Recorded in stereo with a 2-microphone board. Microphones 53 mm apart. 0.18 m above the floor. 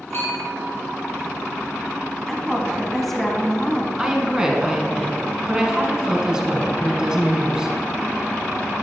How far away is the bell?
About 3.5 m.